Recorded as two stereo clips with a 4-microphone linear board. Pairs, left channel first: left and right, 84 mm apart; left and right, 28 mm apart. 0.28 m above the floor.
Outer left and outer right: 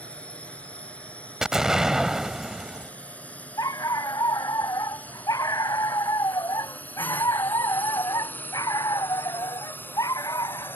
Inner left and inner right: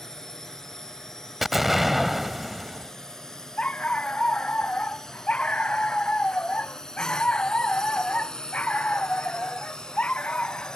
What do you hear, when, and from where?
0.0 s a drone: 15° left (ahead or behind); by 10.8 s 25° left (ahead or behind)
1.4 s an explosion: 5° right (ahead or behind)
3.6 s a dog barking: 45° left (ahead or behind)